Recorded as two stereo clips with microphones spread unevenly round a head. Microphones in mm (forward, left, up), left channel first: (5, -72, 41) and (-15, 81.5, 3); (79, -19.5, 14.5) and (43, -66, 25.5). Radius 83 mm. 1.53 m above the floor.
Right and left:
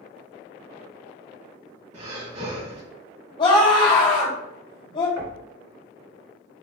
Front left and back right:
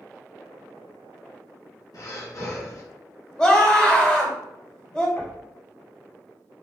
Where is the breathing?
50° left, 1.8 m.